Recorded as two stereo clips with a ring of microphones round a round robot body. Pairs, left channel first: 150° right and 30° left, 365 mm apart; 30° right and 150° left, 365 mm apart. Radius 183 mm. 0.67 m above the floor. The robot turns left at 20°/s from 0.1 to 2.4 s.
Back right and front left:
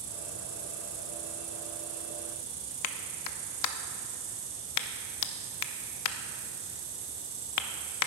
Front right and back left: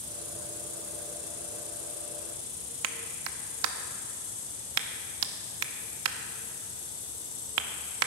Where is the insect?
40° left, 1.9 m; by 8.1 s 5° right, 1.9 m.